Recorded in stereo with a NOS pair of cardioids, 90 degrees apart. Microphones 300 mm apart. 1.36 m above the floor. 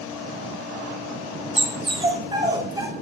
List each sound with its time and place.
1.6 s a dog barking: 20° right, 2.5 m; by 2.9 s 15° right, 3 m